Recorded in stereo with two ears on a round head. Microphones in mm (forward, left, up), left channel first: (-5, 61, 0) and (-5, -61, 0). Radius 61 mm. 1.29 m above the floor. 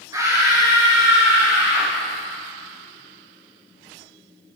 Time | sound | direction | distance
0.1 | a scream | 25° right (ahead or behind) | 5 m